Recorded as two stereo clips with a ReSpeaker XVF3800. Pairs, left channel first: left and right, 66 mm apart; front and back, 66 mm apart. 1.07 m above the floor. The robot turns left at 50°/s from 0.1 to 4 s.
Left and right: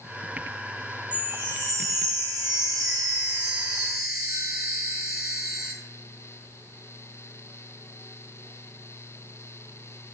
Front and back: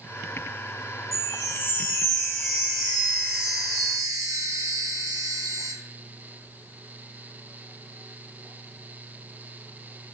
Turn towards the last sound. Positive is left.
turn(degrees=-165)